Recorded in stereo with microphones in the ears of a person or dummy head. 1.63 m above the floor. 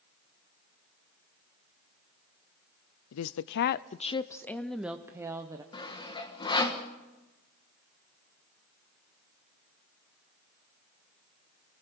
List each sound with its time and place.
3.1 s a woman speaking: 80° left, 0.6 m; by 5.6 s 20° right (ahead or behind), 1.1 m
5.7 s sawing: 25° left (ahead or behind), 1.6 m